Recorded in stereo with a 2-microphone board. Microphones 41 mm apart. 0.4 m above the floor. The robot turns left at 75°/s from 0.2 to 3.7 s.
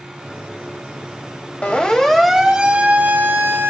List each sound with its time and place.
1.6 s a siren: 35° left (ahead or behind), 3 m; by 3.7 s 60° right (ahead or behind), 3.5 m